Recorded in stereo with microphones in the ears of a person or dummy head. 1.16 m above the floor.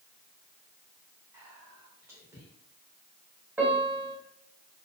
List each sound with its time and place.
1.3 s whispering: 15° right (ahead or behind), 0.8 m
3.6 s a piano: 10° right (ahead or behind), 0.7 m